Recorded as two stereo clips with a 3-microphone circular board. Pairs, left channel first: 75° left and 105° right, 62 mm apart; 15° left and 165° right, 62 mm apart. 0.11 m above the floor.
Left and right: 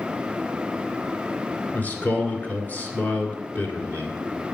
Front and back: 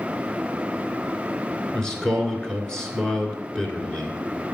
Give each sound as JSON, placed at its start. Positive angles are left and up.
{"t": 1.7, "sound": "a man speaking", "azimuth_deg": 80, "distance_m": 1.6}